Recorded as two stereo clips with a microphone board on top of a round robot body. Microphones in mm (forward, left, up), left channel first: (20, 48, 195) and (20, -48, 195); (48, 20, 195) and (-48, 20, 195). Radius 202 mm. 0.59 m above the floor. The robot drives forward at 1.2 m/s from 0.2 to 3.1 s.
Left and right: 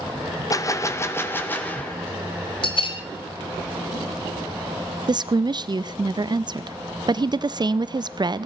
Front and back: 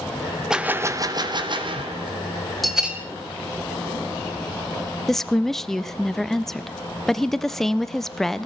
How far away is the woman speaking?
About 0.6 m.